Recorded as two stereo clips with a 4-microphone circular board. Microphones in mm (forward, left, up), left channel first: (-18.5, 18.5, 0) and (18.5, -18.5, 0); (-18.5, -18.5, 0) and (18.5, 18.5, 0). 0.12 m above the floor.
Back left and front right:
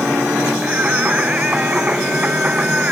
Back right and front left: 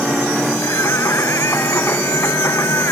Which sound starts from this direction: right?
Singing, at 0.6 s.